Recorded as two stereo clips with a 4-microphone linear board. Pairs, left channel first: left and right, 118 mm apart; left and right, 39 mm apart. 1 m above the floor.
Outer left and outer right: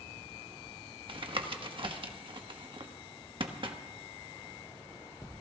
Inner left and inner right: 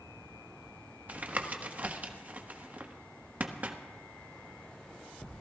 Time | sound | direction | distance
1.1 | tapping | 50° right (ahead or behind) | 1.2 m